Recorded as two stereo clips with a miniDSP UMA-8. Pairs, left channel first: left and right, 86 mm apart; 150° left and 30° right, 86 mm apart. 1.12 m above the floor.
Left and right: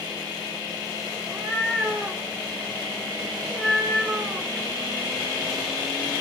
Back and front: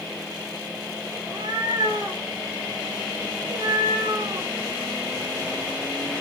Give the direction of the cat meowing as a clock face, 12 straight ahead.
12 o'clock.